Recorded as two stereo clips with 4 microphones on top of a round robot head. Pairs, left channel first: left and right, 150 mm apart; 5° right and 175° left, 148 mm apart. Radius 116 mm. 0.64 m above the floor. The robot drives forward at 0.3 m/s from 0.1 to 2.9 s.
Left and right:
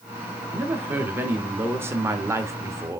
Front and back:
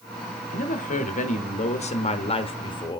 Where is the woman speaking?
15° right, 1.2 m; by 3.0 s 35° right, 0.8 m.